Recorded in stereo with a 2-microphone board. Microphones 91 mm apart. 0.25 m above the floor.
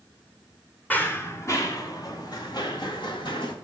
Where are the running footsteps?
20° left (ahead or behind), 1.8 m; by 3.5 s 60° left (ahead or behind), 4 m.